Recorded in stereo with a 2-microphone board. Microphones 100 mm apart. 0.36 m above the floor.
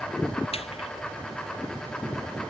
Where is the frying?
85° left.